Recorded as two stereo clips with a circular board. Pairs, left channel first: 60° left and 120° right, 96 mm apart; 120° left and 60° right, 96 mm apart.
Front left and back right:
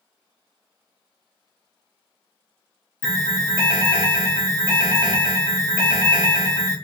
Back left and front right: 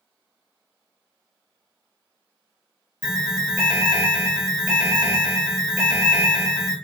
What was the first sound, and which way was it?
An alarm, 15° left.